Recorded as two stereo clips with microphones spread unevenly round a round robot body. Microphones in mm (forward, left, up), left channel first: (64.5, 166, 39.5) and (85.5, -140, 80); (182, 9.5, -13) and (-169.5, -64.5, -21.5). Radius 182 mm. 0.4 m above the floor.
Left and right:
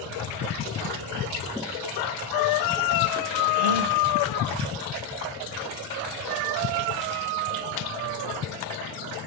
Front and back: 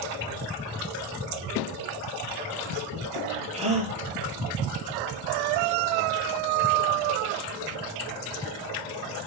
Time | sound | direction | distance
3.5 | a gasp | 95° right | 5 m